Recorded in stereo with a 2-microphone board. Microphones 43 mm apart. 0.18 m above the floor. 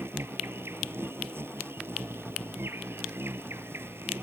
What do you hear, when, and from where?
0.0 s an insect: 75° right (ahead or behind)